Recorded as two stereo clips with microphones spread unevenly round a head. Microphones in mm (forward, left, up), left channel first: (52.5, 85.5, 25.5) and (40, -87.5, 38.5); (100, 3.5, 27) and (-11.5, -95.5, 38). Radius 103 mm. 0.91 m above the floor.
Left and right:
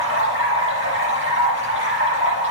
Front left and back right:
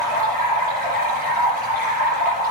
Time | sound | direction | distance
0.0 | running water | 125° right | 7 m